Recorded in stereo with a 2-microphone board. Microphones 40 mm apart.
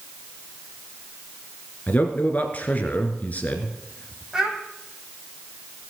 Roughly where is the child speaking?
Centre.